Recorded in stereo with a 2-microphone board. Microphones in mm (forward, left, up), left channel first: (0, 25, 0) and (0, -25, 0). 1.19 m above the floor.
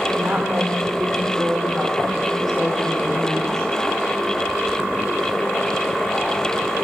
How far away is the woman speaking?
About 4.5 m.